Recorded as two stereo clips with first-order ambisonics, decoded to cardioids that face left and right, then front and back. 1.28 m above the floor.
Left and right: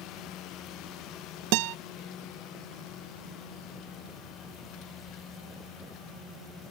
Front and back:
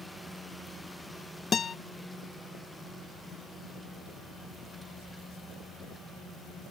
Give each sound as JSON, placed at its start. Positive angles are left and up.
{"t": 1.5, "sound": "a guitar", "azimuth_deg": -70}